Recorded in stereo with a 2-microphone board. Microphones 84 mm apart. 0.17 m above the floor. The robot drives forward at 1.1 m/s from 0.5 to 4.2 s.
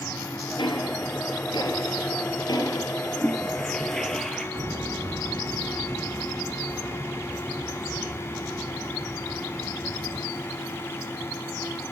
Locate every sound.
0.6 s ticking: 65° left (ahead or behind), 3.5 m; by 3.0 s 50° left (ahead or behind), 4 m
3.2 s a toilet flushing: 10° left (ahead or behind), 2 m; by 4.5 s 5° left (ahead or behind), 3 m
4.5 s footsteps: 60° right (ahead or behind), 1.0 m; by 10.2 s 5° right (ahead or behind), 3.5 m